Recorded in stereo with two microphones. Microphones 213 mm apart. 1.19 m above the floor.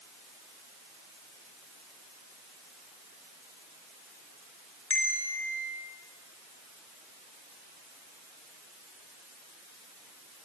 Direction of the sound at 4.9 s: 80° left.